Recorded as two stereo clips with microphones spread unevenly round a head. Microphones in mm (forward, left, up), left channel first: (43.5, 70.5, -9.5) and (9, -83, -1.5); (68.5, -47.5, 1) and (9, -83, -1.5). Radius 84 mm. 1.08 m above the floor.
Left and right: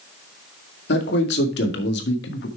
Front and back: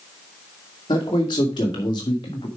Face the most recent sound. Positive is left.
turn(degrees=80)